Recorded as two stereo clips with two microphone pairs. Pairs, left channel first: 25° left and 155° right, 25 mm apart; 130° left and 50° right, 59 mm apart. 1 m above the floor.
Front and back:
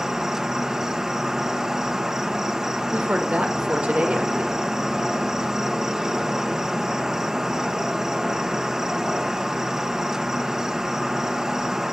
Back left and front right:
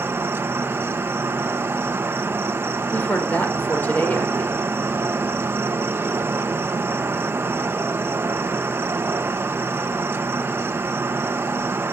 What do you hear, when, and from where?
0.0 s an insect: 90° right, 1.2 m
2.9 s a woman speaking: 170° right, 4 m